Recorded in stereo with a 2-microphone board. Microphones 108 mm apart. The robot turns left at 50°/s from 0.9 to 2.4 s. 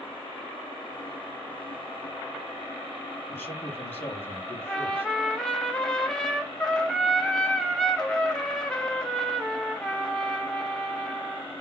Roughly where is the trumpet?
Centre.